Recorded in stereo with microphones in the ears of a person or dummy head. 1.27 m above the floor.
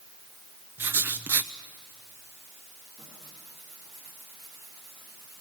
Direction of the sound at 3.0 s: 5° right (ahead or behind).